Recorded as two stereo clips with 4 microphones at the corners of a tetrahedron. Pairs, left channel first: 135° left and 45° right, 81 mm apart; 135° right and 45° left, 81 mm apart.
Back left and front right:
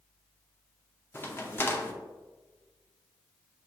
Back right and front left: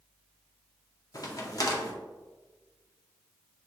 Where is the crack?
165° right, 0.6 m.